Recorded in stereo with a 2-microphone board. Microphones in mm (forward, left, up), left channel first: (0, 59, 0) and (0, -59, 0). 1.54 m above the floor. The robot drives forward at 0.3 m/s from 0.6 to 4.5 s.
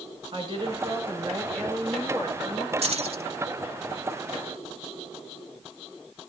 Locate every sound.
0.3 s a woman speaking: 40° right (ahead or behind), 6 m; by 2.7 s 35° right (ahead or behind), 6.5 m
2.8 s keys jangling: 60° right (ahead or behind), 1.3 m; by 3.2 s 65° right (ahead or behind), 1.2 m